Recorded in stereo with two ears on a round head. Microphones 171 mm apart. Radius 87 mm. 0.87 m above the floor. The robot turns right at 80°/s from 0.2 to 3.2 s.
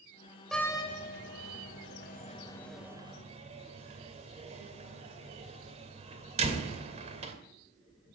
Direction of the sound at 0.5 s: Centre (ahead or behind).